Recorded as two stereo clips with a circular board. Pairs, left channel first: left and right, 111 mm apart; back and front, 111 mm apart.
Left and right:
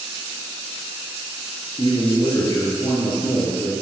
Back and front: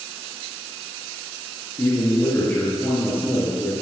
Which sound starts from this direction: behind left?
A man speaking, at 1.8 s.